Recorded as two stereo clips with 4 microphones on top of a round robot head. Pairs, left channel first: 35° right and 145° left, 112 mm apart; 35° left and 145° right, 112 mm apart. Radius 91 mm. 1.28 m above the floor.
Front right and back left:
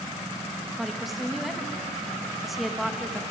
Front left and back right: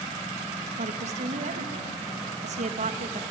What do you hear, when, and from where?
0.8 s a woman speaking: 125° right, 1.9 m